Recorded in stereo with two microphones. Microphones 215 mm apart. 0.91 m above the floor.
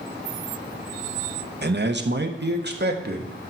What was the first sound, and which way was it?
A man speaking, 50° right (ahead or behind).